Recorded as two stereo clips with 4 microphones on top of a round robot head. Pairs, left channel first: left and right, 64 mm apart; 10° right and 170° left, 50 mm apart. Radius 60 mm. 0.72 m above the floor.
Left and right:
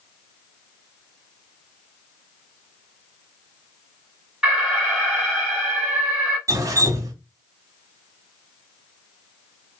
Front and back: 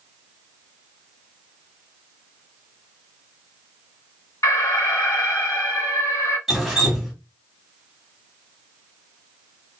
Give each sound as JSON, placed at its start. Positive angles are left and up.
{"t": 4.4, "sound": "an alarm", "azimuth_deg": -15, "distance_m": 2.0}
{"t": 6.5, "sound": "dripping", "azimuth_deg": -100, "distance_m": 1.1}